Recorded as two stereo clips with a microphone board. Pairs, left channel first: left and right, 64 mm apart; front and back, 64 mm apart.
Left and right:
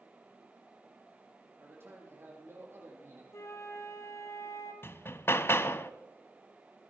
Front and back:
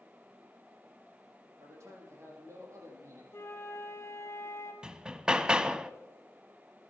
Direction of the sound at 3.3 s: 50° left.